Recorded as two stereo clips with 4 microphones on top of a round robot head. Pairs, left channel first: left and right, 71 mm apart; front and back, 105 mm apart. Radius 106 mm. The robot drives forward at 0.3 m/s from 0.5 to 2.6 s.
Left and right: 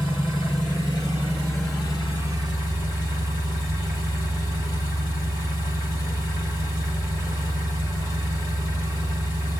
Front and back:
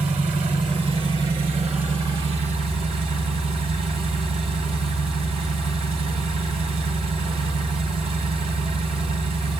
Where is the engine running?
145° left, 3 m; by 9.6 s 150° left, 3.5 m.